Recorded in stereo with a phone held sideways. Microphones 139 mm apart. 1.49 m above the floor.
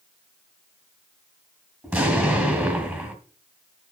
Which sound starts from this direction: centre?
An explosion, at 1.8 s.